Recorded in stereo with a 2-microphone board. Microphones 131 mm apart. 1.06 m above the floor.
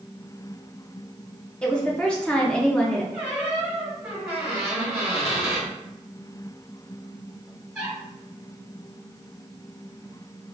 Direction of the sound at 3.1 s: 5° right (ahead or behind).